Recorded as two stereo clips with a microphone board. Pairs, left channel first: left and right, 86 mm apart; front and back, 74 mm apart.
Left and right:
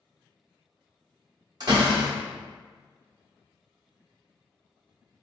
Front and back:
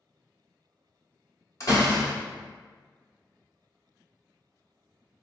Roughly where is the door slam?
Ahead right.